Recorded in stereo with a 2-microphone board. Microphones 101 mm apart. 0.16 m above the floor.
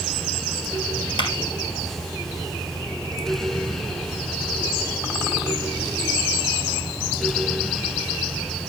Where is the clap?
50° left (ahead or behind), 3 m.